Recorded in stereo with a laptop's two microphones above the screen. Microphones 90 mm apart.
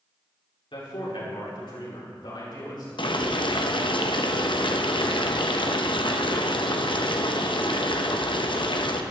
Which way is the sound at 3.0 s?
65° left (ahead or behind).